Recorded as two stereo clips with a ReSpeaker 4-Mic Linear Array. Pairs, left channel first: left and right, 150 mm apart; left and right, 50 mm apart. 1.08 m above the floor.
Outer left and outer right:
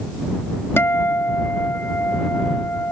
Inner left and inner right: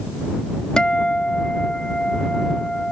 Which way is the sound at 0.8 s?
15° left (ahead or behind).